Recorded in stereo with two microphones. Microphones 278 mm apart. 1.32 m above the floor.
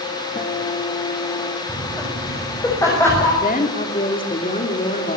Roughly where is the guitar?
Left.